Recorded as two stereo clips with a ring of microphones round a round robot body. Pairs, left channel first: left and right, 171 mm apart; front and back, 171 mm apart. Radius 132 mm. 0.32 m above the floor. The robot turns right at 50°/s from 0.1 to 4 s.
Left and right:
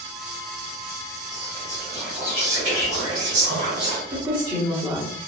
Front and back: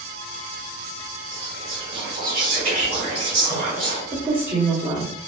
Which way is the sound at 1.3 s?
145° left.